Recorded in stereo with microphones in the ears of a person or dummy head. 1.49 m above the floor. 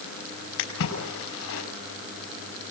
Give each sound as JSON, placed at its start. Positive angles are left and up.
{"t": 0.6, "sound": "a splash", "side_deg": 80, "distance_m": 5.0}